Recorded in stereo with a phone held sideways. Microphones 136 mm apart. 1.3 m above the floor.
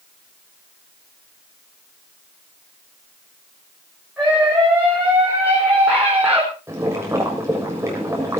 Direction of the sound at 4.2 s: 15° right (ahead or behind).